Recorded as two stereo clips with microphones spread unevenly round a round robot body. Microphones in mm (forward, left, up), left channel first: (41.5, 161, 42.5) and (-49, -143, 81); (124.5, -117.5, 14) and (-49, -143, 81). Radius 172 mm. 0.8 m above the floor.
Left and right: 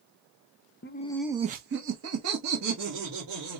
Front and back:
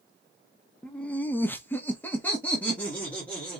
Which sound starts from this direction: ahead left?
Laughter, at 0.8 s.